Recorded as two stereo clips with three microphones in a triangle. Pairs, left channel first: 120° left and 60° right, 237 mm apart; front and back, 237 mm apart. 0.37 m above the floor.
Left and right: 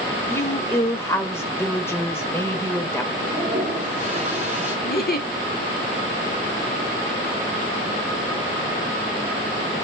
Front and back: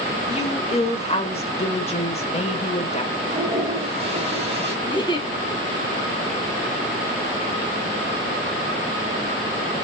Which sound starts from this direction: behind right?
A toilet flushing, at 3.2 s.